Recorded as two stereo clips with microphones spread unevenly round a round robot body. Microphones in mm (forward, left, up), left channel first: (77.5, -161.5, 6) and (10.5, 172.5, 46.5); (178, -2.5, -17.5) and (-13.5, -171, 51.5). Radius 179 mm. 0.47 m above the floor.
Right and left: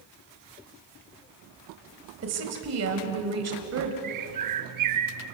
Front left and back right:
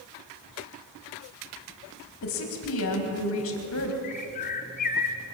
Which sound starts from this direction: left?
A bird, at 4.0 s.